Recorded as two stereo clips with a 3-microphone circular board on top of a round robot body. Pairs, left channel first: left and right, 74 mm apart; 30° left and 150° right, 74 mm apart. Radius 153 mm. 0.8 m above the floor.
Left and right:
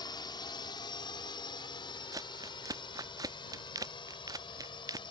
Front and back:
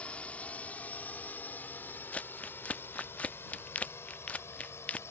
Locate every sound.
0.0 s a drone: 100° left; by 5.1 s 85° left
2.1 s crumpling: 45° right